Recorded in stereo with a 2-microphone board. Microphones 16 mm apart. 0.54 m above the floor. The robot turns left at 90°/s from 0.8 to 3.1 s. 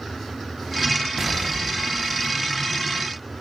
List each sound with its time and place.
1.2 s an explosion: 80° right, 0.7 m; by 2.6 s 155° left, 0.7 m